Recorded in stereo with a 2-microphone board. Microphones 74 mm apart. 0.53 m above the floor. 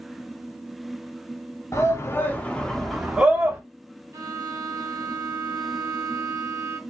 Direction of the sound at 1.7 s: 40° left (ahead or behind).